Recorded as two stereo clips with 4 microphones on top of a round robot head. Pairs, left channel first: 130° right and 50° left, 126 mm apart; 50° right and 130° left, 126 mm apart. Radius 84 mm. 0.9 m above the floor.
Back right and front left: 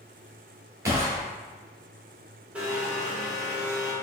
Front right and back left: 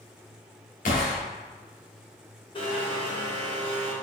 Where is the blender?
25° right, 1.1 m.